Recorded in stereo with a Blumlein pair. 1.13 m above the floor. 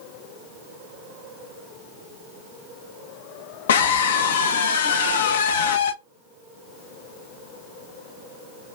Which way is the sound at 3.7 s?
65° left.